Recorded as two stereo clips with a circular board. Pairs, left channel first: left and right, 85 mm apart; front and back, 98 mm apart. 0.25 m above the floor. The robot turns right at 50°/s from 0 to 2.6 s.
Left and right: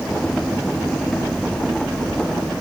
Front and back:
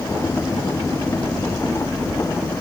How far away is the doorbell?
I don't hear a doorbell.